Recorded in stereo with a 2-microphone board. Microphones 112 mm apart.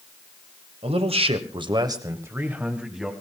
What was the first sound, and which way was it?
A man speaking, 65° right (ahead or behind).